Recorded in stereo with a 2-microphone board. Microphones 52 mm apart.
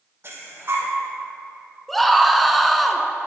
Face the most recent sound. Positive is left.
turn(degrees=0)  # may be behind; listen again after turning